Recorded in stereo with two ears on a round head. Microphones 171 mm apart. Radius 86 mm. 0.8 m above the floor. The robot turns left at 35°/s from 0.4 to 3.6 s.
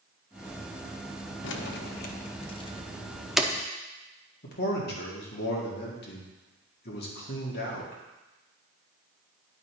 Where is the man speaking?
55° left (ahead or behind), 2.0 m.